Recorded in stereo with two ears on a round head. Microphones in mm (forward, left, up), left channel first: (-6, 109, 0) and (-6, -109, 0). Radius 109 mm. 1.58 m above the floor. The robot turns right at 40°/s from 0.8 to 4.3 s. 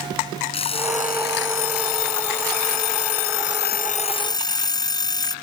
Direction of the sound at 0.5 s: 25° left.